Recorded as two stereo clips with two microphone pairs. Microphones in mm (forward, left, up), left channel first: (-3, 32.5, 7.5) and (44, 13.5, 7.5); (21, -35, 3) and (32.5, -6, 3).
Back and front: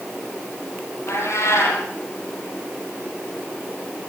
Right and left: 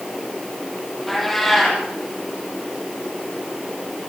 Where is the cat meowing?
160° left, 8.5 m.